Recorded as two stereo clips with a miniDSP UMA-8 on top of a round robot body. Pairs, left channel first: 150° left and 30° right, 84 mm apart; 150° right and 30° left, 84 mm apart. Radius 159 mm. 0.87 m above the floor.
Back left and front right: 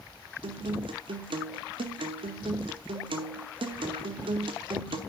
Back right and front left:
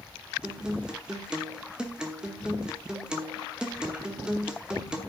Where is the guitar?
50° right, 1.1 m.